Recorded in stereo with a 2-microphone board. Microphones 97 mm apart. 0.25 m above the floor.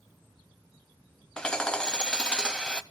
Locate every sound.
1.4 s hammering: 10° left (ahead or behind), 0.6 m